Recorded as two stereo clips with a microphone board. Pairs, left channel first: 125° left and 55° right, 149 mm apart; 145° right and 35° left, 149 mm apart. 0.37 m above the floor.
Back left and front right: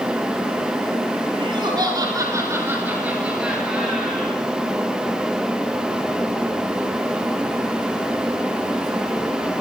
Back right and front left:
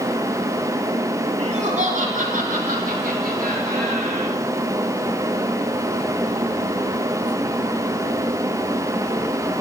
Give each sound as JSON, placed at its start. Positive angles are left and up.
{"t": 1.4, "sound": "laughter", "azimuth_deg": -5, "distance_m": 4.5}